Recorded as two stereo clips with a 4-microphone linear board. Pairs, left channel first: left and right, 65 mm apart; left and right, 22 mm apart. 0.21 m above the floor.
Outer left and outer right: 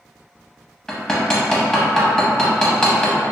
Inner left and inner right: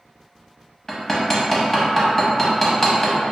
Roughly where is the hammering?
Centre.